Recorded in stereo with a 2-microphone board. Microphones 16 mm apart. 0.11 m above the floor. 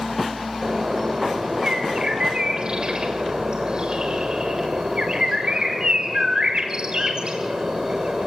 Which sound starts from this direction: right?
A bird, at 0.6 s.